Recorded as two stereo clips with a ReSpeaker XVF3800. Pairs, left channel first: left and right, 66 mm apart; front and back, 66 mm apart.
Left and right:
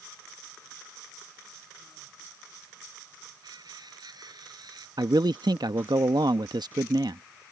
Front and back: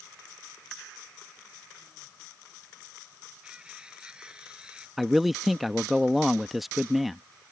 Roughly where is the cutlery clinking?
Right.